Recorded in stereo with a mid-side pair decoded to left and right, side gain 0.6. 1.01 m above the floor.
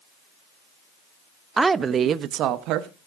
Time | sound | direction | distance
1.6 | a woman speaking | 15° right | 0.7 m